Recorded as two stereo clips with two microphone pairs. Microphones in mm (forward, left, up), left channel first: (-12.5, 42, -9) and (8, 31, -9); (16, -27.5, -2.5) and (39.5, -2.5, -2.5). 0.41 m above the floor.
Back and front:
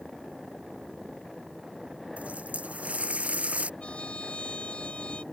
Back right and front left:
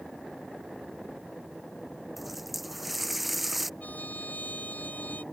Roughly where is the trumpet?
Behind.